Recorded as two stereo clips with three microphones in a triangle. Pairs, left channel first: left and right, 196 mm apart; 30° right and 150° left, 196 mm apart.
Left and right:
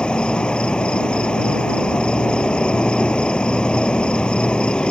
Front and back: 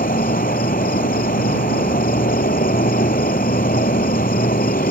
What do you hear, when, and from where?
0.0 s an insect: 5° left